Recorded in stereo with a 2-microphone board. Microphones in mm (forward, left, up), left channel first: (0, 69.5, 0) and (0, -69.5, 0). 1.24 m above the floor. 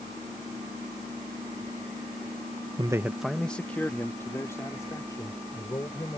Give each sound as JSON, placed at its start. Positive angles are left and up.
{"t": 2.8, "sound": "a man speaking", "side_deg": -35}